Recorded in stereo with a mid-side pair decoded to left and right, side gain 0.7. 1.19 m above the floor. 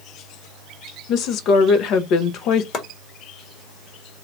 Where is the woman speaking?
55° left, 0.8 m.